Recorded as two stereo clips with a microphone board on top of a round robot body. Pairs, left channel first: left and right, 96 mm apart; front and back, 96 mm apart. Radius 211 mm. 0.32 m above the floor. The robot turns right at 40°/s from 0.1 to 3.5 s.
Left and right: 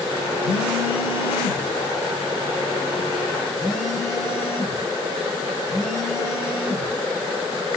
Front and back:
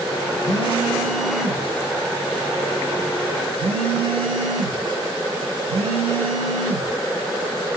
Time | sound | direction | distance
0.4 | a phone buzzing | 60° left | 1.1 m